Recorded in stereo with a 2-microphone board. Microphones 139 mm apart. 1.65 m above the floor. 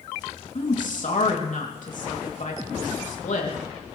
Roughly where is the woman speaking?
Left.